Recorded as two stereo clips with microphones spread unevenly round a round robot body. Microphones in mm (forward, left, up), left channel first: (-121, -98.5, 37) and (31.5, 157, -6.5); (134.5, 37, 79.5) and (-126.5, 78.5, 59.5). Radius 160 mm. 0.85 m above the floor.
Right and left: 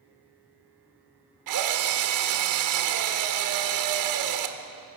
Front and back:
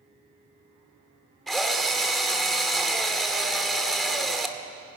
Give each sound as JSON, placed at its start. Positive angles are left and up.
{"t": 1.5, "sound": "a drill", "azimuth_deg": 80, "distance_m": 1.8}